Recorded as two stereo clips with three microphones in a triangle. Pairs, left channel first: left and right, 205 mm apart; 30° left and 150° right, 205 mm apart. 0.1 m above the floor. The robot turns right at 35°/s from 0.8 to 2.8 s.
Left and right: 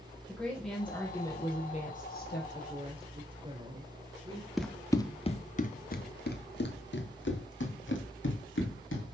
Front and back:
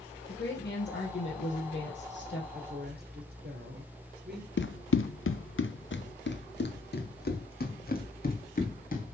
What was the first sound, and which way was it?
A woman speaking, 5° left.